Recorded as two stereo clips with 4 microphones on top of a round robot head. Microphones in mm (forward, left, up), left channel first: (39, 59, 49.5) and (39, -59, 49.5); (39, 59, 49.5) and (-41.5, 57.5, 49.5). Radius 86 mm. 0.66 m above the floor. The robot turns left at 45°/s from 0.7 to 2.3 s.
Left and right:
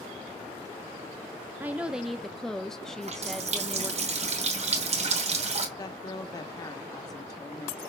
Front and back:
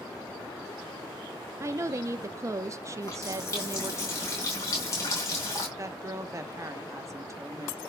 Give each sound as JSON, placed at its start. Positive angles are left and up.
{"t": 1.6, "sound": "a woman speaking", "azimuth_deg": -155, "distance_m": 0.6}
{"t": 3.0, "sound": "a running tap", "azimuth_deg": -60, "distance_m": 2.5}
{"t": 5.8, "sound": "a woman speaking", "azimuth_deg": 140, "distance_m": 1.3}